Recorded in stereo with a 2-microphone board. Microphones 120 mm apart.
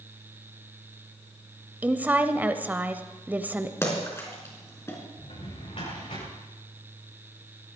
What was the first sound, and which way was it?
A woman speaking, 15° right (ahead or behind).